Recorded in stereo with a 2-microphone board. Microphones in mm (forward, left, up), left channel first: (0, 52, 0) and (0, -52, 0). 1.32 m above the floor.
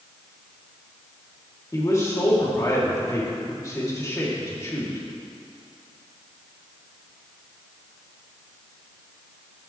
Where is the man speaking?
30° left (ahead or behind), 3 m.